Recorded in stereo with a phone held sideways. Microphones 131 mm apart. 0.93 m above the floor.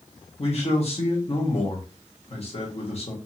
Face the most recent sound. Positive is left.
turn(degrees=50)  # may be behind; listen again after turning